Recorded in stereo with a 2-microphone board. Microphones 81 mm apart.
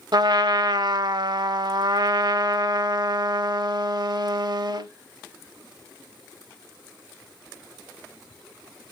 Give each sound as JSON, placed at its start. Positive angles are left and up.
{"t": 0.1, "sound": "a trumpet", "side_deg": -60, "distance_m": 0.5}